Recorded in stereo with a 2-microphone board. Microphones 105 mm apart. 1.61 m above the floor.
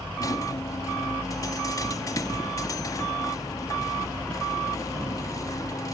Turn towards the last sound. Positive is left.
turn(degrees=30)  # may be behind; listen again after turning